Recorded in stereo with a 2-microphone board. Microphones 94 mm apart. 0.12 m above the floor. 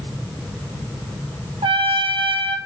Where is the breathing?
I don't hear breathing.